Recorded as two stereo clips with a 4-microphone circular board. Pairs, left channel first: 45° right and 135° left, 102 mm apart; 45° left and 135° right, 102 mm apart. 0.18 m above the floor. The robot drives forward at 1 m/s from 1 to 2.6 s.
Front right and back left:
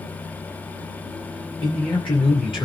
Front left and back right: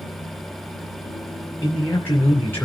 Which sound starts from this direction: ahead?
A man speaking, at 1.6 s.